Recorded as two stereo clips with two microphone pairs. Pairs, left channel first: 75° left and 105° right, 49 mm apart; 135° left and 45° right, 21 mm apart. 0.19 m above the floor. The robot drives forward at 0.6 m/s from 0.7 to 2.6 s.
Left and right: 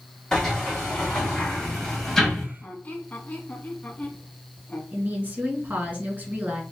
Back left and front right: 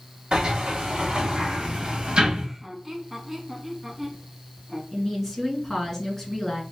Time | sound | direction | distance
0.3 | a sliding door | 5° right | 2.5 m
2.6 | a squeak | 35° left | 1.1 m
4.9 | a woman speaking | 150° right | 1.9 m